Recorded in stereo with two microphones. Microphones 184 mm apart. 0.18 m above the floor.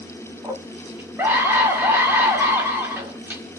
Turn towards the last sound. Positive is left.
turn(degrees=-10)  # may be behind; listen again after turning